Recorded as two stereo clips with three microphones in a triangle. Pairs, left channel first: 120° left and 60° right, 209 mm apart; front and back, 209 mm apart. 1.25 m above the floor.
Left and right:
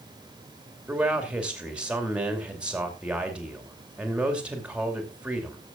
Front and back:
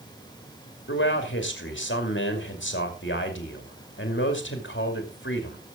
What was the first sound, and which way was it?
A man speaking, 25° left.